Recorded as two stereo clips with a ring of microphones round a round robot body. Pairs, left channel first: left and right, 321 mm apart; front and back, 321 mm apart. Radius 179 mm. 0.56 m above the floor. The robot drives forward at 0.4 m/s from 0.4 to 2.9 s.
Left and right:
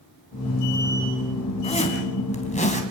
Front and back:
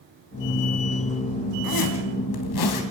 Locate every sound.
1.6 s a zipper: 20° left, 3.5 m